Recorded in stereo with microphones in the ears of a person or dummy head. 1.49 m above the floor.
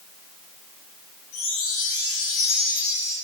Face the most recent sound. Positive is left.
turn(degrees=45)  # may be behind; listen again after turning